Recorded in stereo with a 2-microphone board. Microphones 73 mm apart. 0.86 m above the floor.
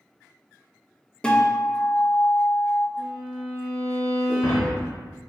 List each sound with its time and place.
1.2 s a guitar: 10° left (ahead or behind), 0.7 m
3.0 s a violin: 40° left (ahead or behind), 1.1 m
4.3 s breaking glass: 70° left (ahead or behind), 1.9 m